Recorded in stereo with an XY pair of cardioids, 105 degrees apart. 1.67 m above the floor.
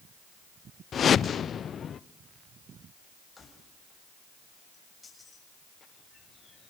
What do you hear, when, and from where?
0.9 s a whoosh: 50° left, 0.8 m
3.4 s keys jangling: 25° left, 6.5 m